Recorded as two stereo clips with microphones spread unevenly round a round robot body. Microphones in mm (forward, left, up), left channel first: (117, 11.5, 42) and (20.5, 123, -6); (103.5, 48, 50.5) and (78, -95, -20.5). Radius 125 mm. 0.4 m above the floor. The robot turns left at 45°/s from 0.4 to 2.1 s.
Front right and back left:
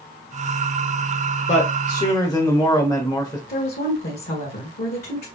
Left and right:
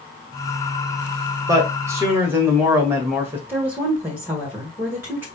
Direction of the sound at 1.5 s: 100° right.